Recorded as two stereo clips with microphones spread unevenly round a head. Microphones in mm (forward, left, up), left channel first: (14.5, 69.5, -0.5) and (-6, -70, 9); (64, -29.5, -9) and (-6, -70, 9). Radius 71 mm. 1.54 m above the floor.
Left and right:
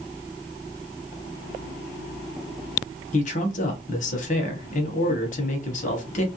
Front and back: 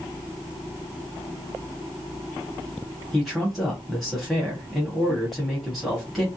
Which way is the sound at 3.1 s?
120° left.